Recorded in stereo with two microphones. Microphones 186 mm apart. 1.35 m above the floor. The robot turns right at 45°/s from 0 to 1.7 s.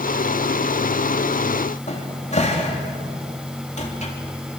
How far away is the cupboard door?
About 3 m.